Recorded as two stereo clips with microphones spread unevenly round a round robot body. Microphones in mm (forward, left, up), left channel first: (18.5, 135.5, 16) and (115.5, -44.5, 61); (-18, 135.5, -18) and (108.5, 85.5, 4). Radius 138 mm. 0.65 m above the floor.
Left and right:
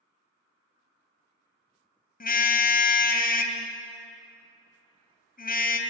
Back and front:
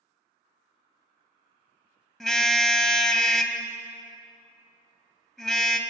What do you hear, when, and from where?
2.2 s a car horn: 70° left, 2.5 m